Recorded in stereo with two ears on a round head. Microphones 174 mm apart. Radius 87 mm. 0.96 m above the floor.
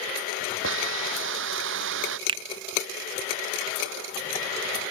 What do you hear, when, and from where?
0.6 s a hiss: 70° right (ahead or behind)
2.3 s a finger snap: 25° right (ahead or behind)